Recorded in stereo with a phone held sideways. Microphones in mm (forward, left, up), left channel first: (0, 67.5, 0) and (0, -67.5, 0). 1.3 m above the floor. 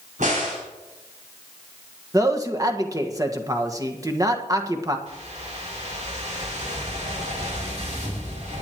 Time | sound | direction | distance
0.2 | a crack | 75° right (ahead or behind) | 7.5 m
2.1 | a man speaking | 25° right (ahead or behind) | 1.6 m
5.1 | a whoosh | 55° right (ahead or behind) | 3.5 m